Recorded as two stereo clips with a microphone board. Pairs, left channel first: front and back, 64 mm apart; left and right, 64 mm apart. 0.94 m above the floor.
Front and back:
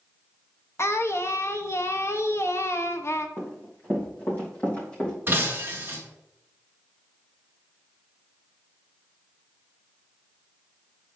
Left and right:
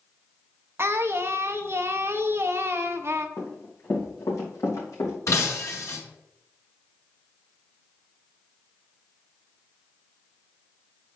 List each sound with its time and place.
0.8 s singing: 45° right, 0.6 m
3.4 s running footsteps: 50° left, 3 m; by 5.2 s 70° left, 3 m
5.3 s breaking glass: 125° left, 1.5 m